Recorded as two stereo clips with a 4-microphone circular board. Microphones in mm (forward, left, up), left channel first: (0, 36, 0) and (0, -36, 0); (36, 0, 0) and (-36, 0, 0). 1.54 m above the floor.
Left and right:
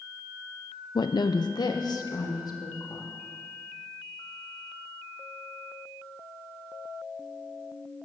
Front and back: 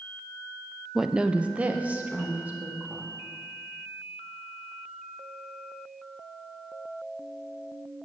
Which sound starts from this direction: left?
A woman speaking, at 0.9 s.